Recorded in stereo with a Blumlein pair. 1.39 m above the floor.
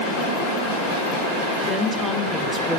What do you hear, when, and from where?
1.7 s a woman speaking: 10° right, 5 m